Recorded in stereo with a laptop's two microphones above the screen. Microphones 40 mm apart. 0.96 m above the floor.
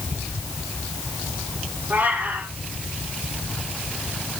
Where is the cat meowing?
50° right (ahead or behind), 8 m.